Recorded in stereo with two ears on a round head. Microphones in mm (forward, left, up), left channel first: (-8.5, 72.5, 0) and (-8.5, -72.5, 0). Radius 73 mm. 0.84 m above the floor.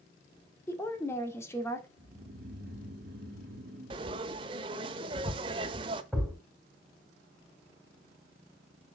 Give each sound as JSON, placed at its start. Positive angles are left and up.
{"t": 0.7, "sound": "a woman speaking", "side_deg": 15, "distance_m": 1.8}
{"t": 2.0, "sound": "snoring", "side_deg": -65, "distance_m": 2.0}
{"t": 3.9, "sound": "frying", "side_deg": -30, "distance_m": 0.8}
{"t": 6.1, "sound": "a thud", "side_deg": -5, "distance_m": 4.0}